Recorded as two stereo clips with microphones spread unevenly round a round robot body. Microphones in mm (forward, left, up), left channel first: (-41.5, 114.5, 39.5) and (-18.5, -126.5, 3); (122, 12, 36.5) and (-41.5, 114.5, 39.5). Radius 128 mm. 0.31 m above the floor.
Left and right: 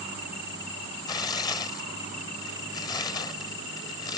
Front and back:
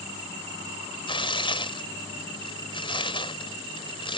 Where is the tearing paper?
15° left.